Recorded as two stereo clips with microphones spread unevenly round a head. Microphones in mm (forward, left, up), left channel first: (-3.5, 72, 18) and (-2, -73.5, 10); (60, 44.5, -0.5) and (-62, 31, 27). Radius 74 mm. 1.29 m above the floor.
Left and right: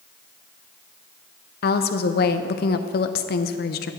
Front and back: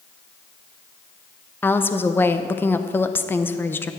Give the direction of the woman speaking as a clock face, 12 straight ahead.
10 o'clock.